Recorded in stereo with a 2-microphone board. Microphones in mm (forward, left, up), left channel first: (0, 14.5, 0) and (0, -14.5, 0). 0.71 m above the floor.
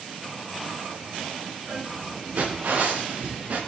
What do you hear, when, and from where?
1.6 s footsteps: 85° right, 7.5 m; by 3.6 s 80° right, 6.5 m